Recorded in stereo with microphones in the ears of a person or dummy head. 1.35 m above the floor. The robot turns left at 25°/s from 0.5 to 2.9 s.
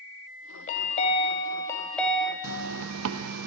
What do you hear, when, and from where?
0.7 s a chime: 40° left, 0.8 m; by 2.3 s 5° right, 0.8 m
2.4 s a zipper: 75° right (ahead or behind), 0.6 m